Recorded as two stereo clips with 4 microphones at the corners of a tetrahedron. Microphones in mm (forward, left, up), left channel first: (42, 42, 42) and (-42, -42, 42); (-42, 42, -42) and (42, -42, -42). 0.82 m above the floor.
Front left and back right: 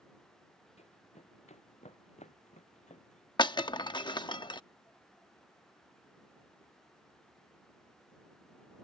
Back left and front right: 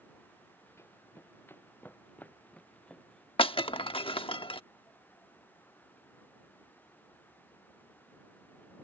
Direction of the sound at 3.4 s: 95° left.